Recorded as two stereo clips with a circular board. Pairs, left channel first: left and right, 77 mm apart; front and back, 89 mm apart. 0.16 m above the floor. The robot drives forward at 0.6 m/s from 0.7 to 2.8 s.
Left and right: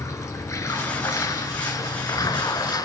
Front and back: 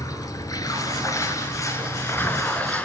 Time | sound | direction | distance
0.0 | running water | 45° left | 3 m